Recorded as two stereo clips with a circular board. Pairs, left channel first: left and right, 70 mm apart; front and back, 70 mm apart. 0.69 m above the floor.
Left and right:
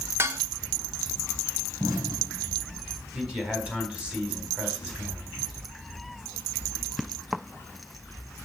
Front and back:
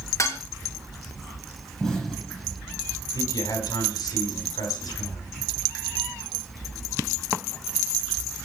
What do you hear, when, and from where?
0.2 s dishes clattering: 35° right, 1.0 m
1.8 s an explosion: 80° right, 6.5 m
3.1 s a man speaking: 10° right, 4 m